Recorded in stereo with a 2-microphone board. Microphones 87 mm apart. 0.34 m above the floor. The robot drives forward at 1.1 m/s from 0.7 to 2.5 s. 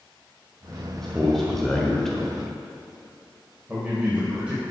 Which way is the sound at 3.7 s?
15° right (ahead or behind).